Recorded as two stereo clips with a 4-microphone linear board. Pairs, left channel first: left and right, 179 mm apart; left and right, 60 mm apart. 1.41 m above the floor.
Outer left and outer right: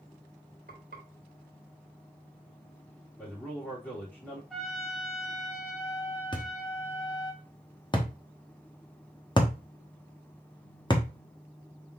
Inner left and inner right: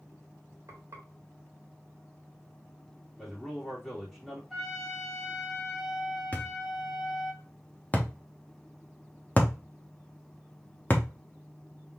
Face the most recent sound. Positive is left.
turn(degrees=25)  # may be behind; listen again after turning